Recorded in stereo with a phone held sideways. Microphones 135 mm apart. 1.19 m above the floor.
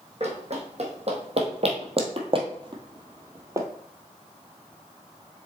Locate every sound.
0.2 s running footsteps: 55° right (ahead or behind), 2.5 m; by 3.7 s 20° right (ahead or behind), 1.3 m